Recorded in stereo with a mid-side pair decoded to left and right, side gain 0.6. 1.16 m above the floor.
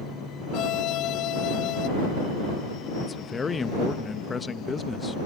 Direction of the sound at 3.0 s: 25° left.